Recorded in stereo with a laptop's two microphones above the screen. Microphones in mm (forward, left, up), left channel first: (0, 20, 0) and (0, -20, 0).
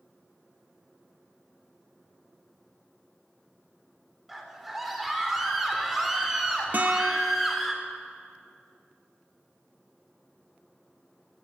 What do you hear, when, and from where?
4.3 s a scream: 5° right (ahead or behind), 4 m
6.7 s a guitar: 45° right (ahead or behind), 0.9 m